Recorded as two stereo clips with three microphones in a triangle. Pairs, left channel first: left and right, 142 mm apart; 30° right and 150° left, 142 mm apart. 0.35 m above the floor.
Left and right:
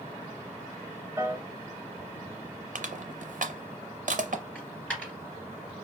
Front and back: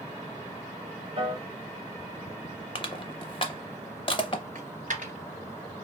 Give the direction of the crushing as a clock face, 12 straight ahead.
3 o'clock.